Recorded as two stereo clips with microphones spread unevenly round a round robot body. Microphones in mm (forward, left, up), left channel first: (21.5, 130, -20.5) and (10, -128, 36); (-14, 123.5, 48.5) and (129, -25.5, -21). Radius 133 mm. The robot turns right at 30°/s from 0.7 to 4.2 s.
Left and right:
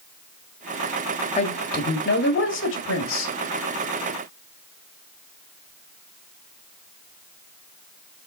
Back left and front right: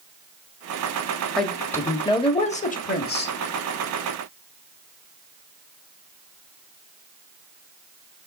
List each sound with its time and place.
1.4 s a woman speaking: 35° left, 1.9 m; by 3.3 s 95° left, 1.9 m